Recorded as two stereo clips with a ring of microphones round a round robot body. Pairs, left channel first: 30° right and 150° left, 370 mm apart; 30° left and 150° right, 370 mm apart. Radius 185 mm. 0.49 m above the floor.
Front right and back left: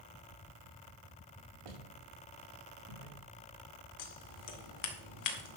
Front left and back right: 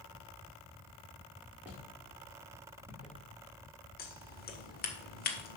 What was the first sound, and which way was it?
Footsteps, 125° left.